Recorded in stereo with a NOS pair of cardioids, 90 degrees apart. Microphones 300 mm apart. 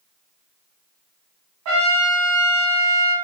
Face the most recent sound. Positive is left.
turn(degrees=-70)